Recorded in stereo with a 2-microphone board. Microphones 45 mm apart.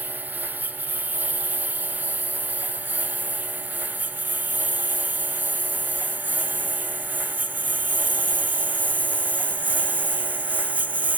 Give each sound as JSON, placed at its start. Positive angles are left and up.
{"t": 0.0, "sound": "a lawn mower", "side_deg": -45}